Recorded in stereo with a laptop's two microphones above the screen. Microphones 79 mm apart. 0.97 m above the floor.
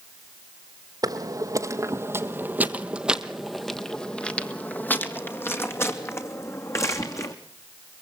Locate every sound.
1.0 s footsteps: 50° right (ahead or behind), 1.6 m; by 7.3 s 40° left (ahead or behind), 3 m